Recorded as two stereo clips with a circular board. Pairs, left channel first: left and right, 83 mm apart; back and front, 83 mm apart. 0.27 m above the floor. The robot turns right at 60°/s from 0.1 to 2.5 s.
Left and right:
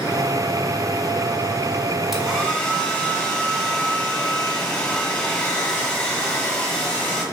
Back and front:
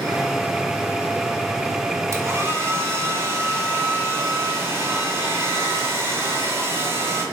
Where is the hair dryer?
5° right, 1.1 m; by 7.2 s 20° left, 1.1 m.